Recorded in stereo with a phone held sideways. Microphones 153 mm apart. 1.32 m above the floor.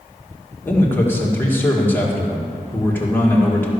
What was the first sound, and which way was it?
A man speaking, 15° left (ahead or behind).